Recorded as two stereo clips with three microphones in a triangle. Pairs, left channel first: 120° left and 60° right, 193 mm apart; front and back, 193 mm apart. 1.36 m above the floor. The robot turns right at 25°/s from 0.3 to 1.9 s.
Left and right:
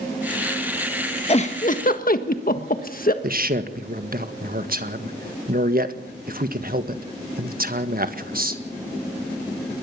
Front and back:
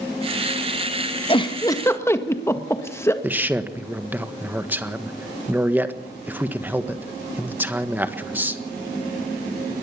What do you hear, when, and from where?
1.3 s a giggle: 60° left, 1.5 m; by 3.1 s 75° left, 1.5 m
3.2 s a man speaking: 100° right, 1.5 m